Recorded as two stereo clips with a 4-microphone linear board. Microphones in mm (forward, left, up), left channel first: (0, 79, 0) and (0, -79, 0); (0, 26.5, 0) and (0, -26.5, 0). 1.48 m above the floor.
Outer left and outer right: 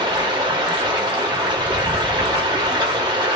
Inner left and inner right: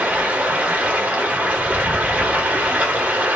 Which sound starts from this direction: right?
Running water, at 0.0 s.